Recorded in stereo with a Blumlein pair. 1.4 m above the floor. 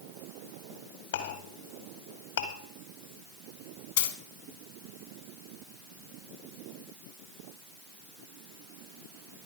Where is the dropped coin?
60° left, 2.5 m.